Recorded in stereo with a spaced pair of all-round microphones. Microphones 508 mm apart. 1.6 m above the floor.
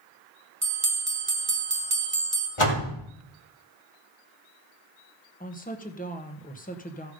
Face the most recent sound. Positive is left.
turn(degrees=15)  # may be behind; listen again after turning